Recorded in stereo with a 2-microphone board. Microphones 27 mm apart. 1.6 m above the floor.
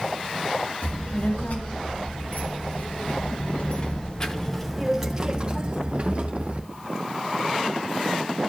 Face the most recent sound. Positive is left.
turn(degrees=-55)  # may be behind; listen again after turning